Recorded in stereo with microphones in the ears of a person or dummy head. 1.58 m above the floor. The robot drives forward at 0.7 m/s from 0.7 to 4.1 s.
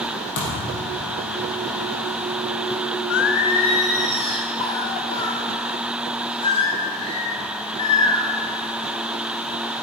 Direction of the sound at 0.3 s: 65° left (ahead or behind).